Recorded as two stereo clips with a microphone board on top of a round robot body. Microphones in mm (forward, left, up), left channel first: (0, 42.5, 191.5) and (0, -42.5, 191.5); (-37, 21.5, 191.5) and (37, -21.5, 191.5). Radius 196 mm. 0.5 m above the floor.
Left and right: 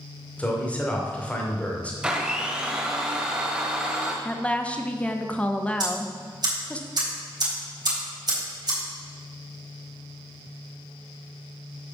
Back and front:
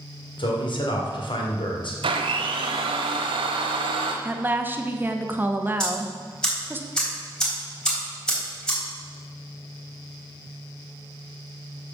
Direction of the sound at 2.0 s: 10° right.